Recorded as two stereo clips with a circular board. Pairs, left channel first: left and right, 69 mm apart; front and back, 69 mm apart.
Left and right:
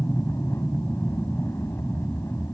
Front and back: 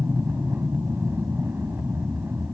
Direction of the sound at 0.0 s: 130° left.